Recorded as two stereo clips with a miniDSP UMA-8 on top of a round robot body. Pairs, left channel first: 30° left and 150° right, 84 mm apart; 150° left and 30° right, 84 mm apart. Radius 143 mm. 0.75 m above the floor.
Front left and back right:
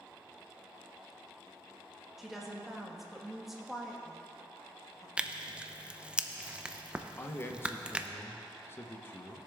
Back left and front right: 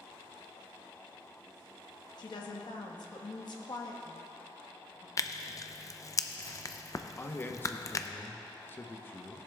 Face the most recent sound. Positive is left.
turn(degrees=90)